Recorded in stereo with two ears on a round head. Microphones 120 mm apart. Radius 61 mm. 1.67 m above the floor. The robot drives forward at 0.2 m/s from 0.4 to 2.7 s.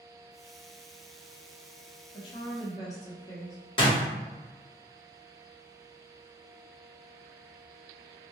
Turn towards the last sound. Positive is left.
turn(degrees=40)  # may be behind; listen again after turning